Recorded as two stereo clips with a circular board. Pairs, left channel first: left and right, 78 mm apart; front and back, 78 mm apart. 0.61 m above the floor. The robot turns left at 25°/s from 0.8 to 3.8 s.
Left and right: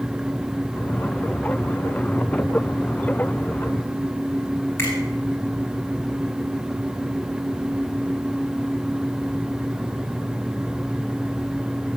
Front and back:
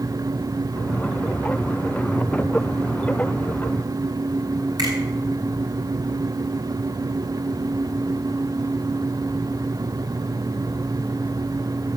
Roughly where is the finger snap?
Behind left.